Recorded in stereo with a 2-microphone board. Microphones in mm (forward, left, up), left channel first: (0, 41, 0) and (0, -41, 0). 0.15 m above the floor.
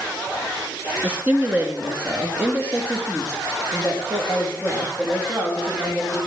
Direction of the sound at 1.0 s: 20° right (ahead or behind).